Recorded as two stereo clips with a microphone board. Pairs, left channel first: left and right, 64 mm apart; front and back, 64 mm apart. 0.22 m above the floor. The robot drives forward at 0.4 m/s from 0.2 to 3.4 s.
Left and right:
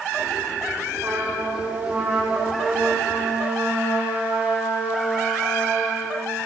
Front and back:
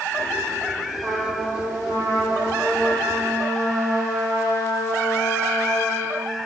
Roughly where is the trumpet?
Behind right.